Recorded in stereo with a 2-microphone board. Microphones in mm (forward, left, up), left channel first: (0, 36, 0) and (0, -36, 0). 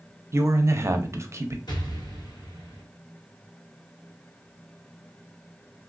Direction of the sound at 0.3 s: 40° right (ahead or behind).